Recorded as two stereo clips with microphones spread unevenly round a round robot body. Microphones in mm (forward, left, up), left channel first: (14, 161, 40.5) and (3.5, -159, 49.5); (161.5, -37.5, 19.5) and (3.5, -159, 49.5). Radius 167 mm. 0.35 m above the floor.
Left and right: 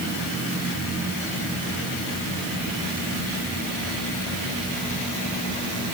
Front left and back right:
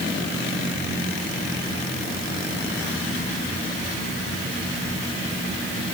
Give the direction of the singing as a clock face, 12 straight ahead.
I don't hear singing.